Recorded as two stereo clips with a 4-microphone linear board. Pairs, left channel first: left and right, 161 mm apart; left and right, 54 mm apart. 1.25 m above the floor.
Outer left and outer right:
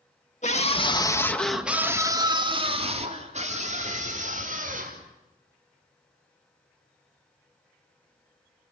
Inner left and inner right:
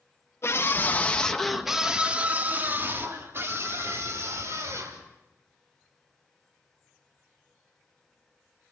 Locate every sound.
0.4 s a scream: 50° left (ahead or behind), 2.5 m; by 5.0 s 55° right (ahead or behind), 6.5 m